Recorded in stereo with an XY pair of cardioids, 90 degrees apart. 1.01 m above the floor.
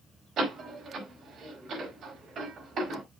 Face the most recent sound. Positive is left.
turn(degrees=-65)